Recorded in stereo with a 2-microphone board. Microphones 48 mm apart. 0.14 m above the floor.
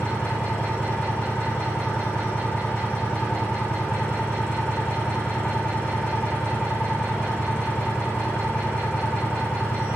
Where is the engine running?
20° left (ahead or behind), 10 m.